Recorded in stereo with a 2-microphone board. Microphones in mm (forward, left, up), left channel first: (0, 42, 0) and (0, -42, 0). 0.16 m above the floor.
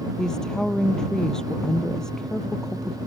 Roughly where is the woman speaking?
Centre.